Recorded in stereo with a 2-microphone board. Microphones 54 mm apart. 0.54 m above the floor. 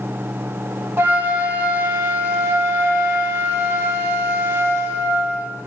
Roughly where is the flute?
Right.